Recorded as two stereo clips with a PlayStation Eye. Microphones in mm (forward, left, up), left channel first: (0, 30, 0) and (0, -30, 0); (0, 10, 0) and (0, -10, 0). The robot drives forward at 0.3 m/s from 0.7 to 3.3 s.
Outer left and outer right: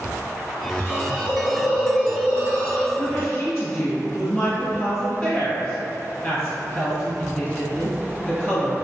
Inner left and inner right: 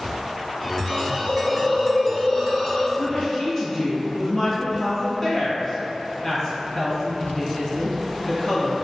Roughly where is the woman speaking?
Left.